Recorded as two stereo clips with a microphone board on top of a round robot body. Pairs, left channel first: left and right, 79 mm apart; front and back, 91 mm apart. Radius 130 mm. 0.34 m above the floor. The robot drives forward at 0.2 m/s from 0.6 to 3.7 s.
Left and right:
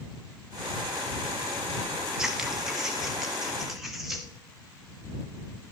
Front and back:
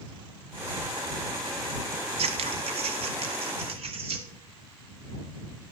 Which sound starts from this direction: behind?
Scissors, at 2.2 s.